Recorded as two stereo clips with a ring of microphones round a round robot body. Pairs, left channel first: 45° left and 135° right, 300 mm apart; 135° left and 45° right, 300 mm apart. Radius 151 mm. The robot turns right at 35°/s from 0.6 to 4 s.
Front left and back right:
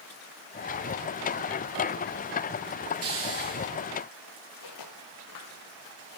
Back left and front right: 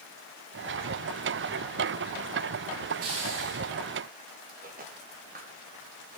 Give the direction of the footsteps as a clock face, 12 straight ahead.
11 o'clock.